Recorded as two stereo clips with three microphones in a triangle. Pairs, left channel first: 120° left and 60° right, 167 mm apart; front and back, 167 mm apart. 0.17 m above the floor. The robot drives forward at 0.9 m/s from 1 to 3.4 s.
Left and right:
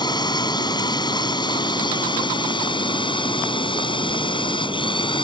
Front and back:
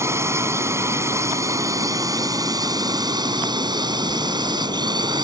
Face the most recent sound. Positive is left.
turn(degrees=145)